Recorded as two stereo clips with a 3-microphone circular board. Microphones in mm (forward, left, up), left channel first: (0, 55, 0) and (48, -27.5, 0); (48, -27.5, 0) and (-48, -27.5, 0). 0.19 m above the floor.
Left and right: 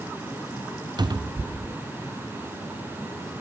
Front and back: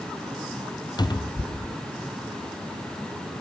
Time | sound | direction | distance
1.0 | a cupboard door | 30° right | 0.6 m